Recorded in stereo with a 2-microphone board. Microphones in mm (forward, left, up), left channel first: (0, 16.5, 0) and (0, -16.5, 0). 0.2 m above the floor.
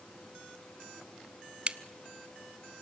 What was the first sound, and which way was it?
A crack, 40° right (ahead or behind).